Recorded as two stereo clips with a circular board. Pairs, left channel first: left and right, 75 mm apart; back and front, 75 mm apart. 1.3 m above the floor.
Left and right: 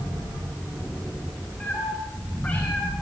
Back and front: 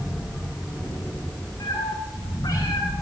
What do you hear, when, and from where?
1.6 s a cat meowing: 155° left, 9.5 m